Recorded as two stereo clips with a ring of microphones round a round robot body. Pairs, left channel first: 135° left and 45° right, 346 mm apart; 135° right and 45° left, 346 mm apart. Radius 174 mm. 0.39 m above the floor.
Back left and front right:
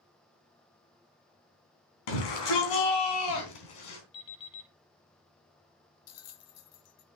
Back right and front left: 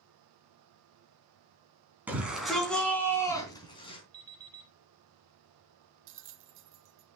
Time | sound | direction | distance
2.1 | a shout | 130° left | 4 m
4.1 | an alarm clock | 125° left | 6.5 m
6.1 | a bell | 95° left | 0.8 m